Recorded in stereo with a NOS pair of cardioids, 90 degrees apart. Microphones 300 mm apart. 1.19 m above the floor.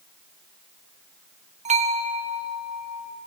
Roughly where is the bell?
Ahead right.